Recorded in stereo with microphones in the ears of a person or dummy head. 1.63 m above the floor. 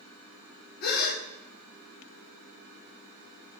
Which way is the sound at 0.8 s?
55° left (ahead or behind).